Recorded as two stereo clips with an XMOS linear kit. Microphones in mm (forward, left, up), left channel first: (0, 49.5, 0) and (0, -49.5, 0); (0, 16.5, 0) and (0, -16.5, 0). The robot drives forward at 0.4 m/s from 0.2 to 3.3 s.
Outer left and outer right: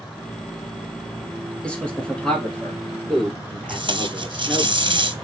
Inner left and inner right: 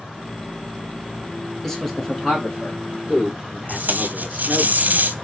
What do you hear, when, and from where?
1.6 s a man speaking: 10° left (ahead or behind), 1.7 m
3.7 s tape being pulled: 55° right (ahead or behind), 0.7 m